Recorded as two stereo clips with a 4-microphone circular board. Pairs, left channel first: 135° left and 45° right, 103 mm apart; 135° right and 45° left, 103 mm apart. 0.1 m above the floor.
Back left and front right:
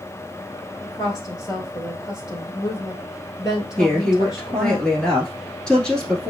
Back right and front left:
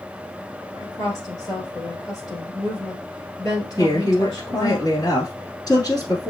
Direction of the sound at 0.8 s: Straight behind.